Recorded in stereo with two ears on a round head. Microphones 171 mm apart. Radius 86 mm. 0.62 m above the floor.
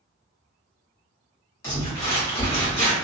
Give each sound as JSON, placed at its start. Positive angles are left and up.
{"t": 1.6, "sound": "crumpling", "side_deg": 15, "distance_m": 1.9}